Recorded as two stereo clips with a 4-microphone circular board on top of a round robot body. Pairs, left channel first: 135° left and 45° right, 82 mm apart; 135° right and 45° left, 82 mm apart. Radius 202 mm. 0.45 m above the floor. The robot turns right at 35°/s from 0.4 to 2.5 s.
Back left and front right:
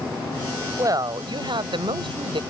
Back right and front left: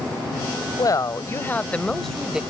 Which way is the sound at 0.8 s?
95° right.